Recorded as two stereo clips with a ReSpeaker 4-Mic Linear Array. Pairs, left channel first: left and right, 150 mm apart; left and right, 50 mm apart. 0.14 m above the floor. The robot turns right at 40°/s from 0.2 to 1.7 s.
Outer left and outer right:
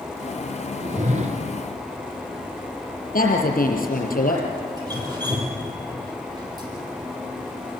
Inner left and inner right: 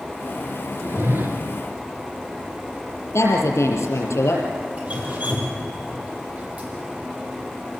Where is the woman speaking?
70° left (ahead or behind), 5 m.